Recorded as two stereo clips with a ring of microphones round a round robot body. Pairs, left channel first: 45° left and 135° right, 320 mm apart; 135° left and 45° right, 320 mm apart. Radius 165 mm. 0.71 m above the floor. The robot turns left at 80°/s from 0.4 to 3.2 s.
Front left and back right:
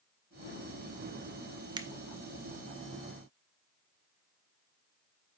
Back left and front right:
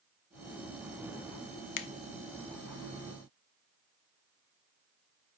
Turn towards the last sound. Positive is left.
turn(degrees=35)